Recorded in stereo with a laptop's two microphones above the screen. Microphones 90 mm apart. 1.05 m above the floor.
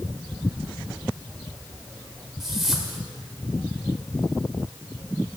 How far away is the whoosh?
About 1.7 m.